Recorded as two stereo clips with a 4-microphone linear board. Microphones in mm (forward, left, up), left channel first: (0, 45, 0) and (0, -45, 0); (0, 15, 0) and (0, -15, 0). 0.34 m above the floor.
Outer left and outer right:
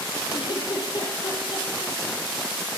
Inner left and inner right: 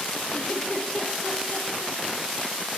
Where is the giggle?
60° left (ahead or behind), 6 m.